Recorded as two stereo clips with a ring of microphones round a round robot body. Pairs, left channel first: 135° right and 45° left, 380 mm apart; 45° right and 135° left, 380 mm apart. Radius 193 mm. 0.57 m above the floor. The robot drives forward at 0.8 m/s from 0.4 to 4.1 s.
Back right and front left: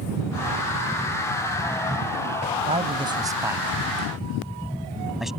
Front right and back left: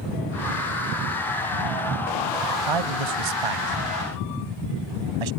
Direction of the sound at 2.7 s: 120° left.